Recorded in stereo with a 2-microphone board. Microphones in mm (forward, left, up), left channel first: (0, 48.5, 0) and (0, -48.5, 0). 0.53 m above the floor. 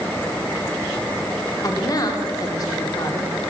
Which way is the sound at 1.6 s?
40° left (ahead or behind).